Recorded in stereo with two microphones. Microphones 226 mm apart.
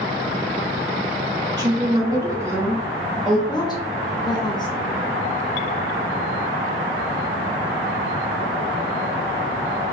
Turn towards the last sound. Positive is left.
turn(degrees=20)  # may be behind; listen again after turning